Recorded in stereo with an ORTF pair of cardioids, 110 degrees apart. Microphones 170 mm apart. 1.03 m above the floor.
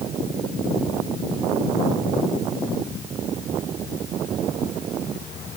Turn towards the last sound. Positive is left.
No sound to turn to.